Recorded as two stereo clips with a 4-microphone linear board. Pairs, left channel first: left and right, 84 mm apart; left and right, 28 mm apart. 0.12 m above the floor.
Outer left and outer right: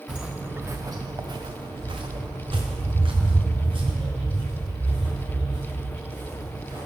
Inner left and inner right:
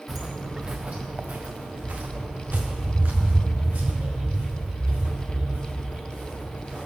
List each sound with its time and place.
0.1 s footsteps: 5° right (ahead or behind), 0.7 m; by 6.9 s 65° right (ahead or behind), 3.5 m